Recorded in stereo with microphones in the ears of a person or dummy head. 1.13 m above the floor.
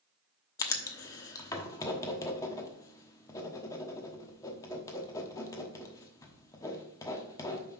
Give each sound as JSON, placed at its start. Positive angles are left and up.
{"t": 0.6, "sound": "writing", "side_deg": 15, "distance_m": 1.0}